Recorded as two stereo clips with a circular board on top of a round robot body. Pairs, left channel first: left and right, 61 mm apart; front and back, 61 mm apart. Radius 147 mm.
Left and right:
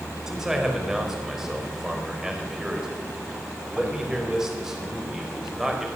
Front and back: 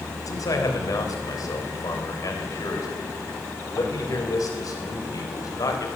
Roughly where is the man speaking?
Ahead.